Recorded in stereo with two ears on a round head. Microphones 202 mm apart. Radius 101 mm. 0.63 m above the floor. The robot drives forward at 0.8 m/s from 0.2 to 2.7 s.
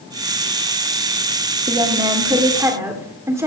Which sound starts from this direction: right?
A woman speaking, at 1.7 s.